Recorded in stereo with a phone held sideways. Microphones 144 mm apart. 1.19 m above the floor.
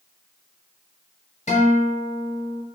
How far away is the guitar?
About 1.1 m.